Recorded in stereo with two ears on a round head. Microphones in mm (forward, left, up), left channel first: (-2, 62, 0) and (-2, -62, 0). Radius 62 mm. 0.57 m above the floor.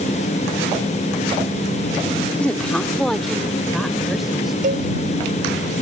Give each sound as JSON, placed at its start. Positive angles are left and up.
{"t": 2.4, "sound": "a woman speaking", "side_deg": 10}
{"t": 4.6, "sound": "a cowbell", "side_deg": -65}